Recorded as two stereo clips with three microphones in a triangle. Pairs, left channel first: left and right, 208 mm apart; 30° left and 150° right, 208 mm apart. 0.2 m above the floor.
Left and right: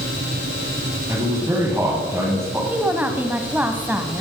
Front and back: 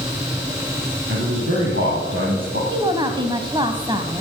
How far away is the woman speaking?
About 1.1 m.